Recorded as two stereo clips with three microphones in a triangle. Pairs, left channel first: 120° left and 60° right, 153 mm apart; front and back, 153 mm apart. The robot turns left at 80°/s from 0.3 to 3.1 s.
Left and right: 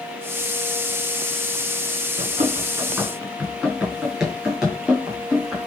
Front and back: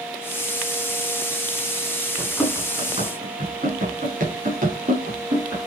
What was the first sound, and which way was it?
Running footsteps, 75° right.